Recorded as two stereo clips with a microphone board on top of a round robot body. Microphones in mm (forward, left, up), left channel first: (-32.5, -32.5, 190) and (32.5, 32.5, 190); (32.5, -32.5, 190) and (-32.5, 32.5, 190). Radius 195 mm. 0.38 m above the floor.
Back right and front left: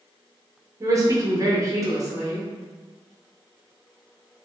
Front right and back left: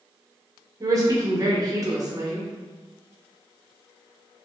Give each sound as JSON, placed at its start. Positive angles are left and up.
{"t": 0.8, "sound": "a woman speaking", "azimuth_deg": 90, "distance_m": 1.3}